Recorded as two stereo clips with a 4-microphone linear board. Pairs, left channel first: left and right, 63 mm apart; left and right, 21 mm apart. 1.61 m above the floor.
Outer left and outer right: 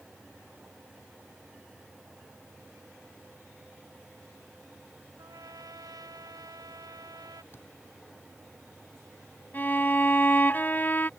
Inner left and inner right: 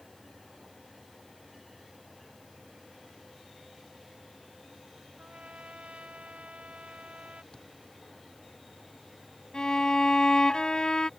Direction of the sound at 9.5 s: 30° left (ahead or behind).